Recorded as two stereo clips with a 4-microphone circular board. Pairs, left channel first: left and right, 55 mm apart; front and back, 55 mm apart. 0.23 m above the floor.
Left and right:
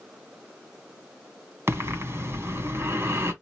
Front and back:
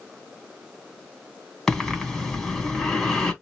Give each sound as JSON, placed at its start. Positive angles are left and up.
{"t": 1.7, "sound": "breathing", "azimuth_deg": -85, "distance_m": 2.0}